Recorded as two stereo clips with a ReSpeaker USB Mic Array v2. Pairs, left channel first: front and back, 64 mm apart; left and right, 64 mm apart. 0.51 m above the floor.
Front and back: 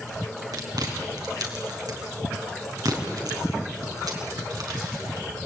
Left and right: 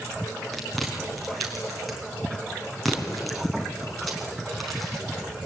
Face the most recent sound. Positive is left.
turn(degrees=180)